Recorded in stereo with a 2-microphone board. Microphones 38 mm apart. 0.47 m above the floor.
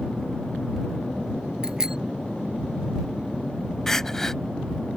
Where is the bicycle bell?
15° right (ahead or behind).